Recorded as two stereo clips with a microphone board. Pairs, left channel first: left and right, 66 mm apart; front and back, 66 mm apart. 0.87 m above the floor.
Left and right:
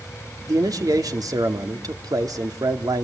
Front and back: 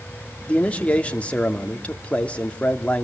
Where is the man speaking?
70° right, 2 m.